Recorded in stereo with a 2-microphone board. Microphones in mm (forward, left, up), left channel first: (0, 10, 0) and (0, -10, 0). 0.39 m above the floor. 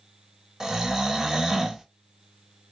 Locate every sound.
0.6 s snoring: 30° right (ahead or behind), 0.5 m